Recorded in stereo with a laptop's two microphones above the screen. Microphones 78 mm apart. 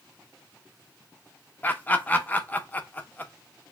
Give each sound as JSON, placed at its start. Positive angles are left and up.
{"t": 1.6, "sound": "laughter", "side_deg": 25, "distance_m": 0.6}